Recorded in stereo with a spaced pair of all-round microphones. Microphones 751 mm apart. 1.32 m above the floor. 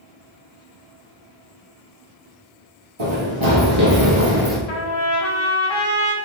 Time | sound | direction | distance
3.0 | running footsteps | 35° right (ahead or behind) | 1.6 m
4.7 | a trumpet | 40° left (ahead or behind) | 0.6 m